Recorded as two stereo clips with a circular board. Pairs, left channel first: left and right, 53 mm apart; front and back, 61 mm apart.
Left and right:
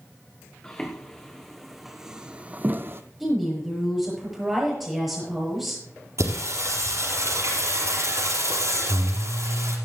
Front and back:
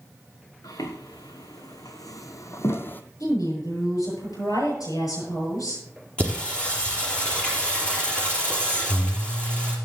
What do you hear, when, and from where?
0.6 s footsteps: 15° left, 2 m; by 3.0 s 60° right, 0.9 m
3.2 s a woman speaking: straight ahead, 7.5 m
6.2 s singing: 75° right, 4 m